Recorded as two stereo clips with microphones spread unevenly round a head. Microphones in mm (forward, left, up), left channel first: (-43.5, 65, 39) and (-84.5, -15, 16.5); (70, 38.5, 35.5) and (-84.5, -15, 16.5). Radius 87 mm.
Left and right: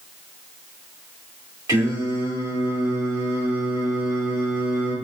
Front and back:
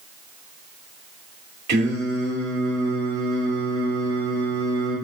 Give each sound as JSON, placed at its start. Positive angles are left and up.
{"t": 1.7, "sound": "singing", "azimuth_deg": -160, "distance_m": 3.0}